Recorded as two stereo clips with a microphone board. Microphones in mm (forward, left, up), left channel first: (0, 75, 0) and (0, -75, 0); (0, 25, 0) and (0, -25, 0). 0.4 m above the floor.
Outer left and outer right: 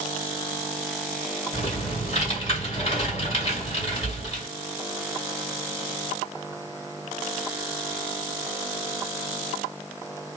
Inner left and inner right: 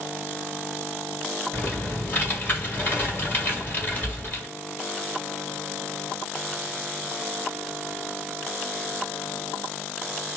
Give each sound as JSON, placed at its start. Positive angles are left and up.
{"t": 1.5, "sound": "typing on a keyboard", "side_deg": 40, "distance_m": 1.8}